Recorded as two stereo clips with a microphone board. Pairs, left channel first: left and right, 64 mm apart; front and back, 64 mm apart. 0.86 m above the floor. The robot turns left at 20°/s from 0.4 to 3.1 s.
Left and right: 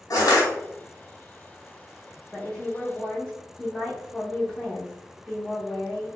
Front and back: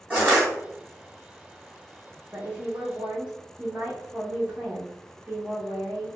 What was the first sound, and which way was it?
Crushing, 110° left.